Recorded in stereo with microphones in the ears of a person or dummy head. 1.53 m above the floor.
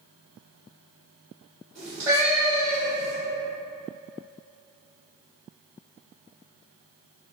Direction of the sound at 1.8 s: 10° right (ahead or behind).